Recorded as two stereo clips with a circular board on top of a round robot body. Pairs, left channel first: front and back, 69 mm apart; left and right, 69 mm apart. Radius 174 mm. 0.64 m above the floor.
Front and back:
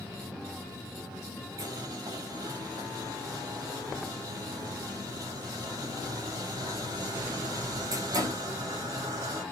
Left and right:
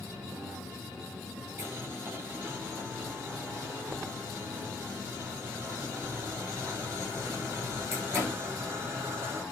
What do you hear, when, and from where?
1.6 s boiling: 145° right, 6.5 m